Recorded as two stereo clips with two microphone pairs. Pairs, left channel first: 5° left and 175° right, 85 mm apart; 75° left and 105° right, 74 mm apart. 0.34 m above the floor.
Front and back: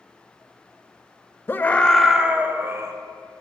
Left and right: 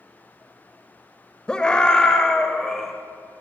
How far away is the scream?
About 0.9 m.